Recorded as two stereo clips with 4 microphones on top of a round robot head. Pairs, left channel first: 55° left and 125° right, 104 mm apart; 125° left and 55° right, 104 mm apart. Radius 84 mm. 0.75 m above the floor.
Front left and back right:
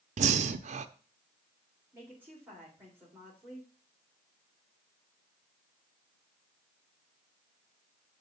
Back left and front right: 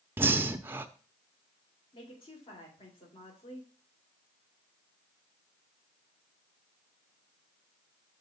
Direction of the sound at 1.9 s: 160° left.